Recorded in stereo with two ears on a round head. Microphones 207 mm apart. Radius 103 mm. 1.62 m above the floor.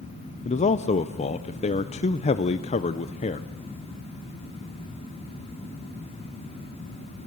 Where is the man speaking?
30° left (ahead or behind), 0.7 m.